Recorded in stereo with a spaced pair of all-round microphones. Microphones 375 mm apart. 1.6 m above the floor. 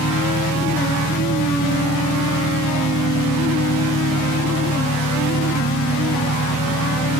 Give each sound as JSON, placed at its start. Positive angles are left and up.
{"t": 0.0, "sound": "an engine running", "side_deg": 45}